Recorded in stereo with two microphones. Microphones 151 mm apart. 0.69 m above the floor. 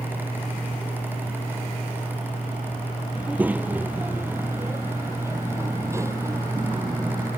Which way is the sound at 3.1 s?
10° right (ahead or behind).